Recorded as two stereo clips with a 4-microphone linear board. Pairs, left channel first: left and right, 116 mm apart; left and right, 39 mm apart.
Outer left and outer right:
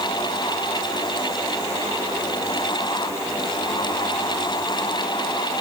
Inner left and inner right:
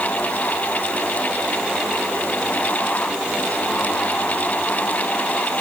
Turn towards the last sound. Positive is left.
No sound to turn to.